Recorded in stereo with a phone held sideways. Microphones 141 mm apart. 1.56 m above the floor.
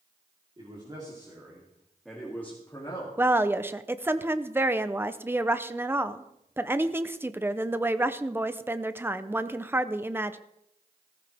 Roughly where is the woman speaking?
Centre.